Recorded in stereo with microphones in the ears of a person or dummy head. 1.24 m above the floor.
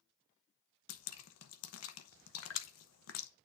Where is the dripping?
80° left, 0.9 m.